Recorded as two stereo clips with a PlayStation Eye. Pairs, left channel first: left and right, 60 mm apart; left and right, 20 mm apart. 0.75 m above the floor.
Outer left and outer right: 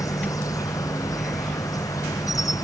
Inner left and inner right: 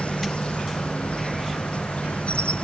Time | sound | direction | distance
0.0 | an insect | 75° left (ahead or behind) | ?